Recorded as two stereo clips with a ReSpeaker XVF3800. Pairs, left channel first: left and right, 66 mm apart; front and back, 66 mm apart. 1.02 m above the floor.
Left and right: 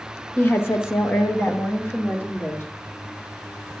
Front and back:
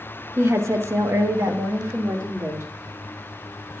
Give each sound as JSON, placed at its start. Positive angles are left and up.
{"t": 0.4, "sound": "a woman speaking", "azimuth_deg": 140, "distance_m": 0.8}